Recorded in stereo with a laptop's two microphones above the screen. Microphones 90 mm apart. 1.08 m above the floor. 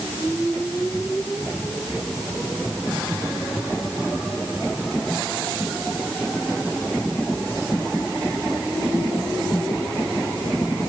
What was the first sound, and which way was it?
Only background noise.